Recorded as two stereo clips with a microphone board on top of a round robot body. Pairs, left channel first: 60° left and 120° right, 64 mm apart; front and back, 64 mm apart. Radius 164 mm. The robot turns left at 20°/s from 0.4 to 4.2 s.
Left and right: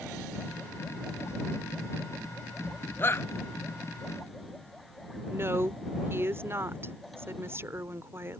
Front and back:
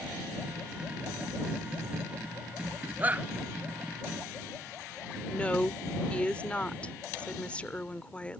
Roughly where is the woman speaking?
Right.